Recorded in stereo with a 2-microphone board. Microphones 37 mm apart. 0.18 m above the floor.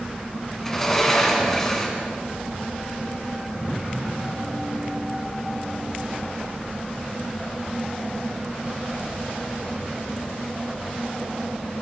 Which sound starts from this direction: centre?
A sliding door, at 0.6 s.